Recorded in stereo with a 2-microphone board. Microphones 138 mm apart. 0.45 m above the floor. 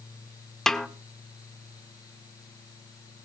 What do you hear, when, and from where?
0.7 s a snare drum: 5° left (ahead or behind), 1.3 m